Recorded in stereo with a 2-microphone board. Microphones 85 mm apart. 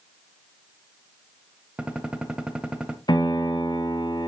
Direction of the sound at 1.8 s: 10° right (ahead or behind).